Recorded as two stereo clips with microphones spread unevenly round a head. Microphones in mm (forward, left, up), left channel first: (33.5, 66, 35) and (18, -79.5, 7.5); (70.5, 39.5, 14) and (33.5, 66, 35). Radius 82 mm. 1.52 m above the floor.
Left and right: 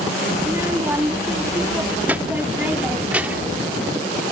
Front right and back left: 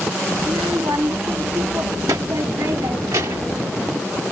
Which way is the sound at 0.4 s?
175° right.